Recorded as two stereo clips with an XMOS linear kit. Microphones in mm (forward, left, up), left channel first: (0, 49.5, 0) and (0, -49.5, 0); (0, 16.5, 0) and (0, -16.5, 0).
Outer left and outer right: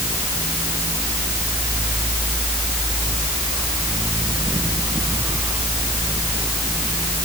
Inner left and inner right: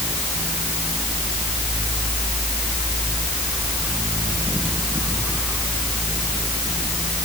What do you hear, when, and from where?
Only background noise.